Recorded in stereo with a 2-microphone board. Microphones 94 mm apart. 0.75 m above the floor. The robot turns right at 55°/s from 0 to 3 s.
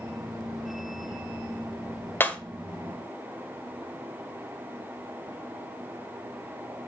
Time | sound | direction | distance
2.2 | breaking glass | 25° left (ahead or behind) | 1.5 m